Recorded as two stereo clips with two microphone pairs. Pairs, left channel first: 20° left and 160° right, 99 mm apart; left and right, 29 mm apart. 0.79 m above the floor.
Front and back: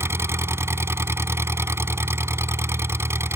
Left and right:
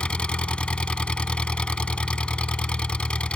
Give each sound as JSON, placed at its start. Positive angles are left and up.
{"t": 0.0, "sound": "an engine running", "azimuth_deg": 135}